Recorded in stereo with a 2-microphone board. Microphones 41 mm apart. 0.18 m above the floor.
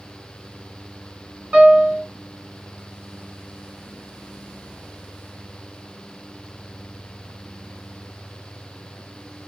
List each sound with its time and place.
1.5 s a piano: 30° right (ahead or behind), 1.8 m